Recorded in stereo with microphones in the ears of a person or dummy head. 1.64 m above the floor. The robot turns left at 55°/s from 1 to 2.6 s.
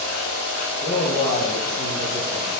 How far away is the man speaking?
About 1.5 m.